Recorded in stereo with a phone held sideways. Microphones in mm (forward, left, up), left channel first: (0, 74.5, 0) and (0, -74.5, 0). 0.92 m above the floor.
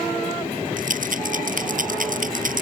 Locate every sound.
0.8 s a rattle: 65° right (ahead or behind)